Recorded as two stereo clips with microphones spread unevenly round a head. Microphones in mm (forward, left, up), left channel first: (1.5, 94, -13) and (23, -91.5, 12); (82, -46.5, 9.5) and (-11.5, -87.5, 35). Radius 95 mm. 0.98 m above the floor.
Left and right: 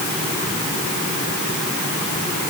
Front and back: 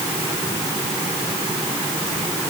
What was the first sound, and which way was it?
Only background noise.